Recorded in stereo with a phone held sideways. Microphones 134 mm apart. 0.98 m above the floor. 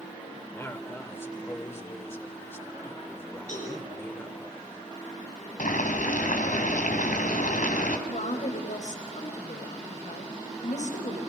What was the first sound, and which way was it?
A man speaking, 20° left (ahead or behind).